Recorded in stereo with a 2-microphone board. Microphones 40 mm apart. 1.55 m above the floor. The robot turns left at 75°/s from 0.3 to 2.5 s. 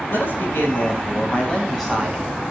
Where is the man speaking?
120° left, 9.5 m; by 2.4 s 40° right, 9.5 m.